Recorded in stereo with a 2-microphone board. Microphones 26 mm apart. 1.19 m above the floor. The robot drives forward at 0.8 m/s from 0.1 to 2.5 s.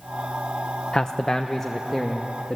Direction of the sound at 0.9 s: 35° left (ahead or behind).